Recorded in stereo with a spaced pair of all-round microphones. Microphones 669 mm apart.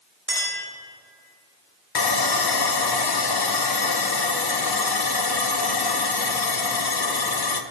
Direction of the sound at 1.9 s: 35° left (ahead or behind).